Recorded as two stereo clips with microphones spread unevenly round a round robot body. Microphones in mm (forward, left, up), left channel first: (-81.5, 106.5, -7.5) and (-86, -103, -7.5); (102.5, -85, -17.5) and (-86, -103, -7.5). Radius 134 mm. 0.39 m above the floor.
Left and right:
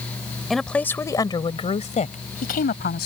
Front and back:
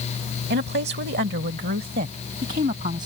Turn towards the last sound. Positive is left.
turn(degrees=120)